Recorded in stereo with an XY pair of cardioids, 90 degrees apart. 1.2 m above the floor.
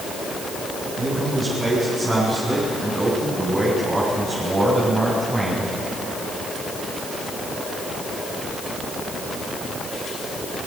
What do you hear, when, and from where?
1.0 s a man speaking: 45° right, 9 m; by 5.7 s 30° right, 7 m